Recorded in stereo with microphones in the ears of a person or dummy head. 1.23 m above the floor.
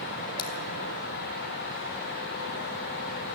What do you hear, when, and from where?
0.4 s scissors: 30° left (ahead or behind), 2.5 m